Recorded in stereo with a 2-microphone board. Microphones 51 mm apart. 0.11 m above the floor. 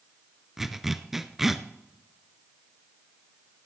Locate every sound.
0.6 s a zipper: 5° right (ahead or behind), 0.6 m